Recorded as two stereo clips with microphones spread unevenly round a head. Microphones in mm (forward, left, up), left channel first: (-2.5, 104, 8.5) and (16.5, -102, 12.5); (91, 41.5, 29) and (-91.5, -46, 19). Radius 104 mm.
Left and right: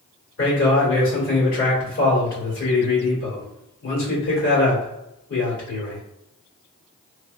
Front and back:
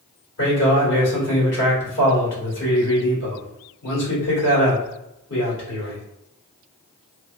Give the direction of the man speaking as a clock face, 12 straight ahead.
10 o'clock.